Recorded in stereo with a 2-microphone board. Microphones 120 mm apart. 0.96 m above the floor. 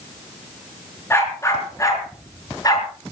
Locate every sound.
1.1 s a dog barking: 20° left (ahead or behind), 5 m; by 2.9 s 35° left (ahead or behind), 5 m